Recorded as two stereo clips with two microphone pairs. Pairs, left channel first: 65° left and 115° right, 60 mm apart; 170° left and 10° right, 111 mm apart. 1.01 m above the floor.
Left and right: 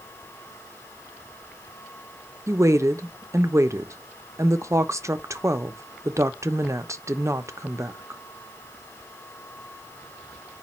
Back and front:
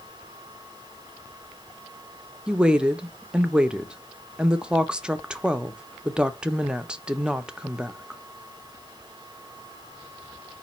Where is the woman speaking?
95° right, 0.5 m.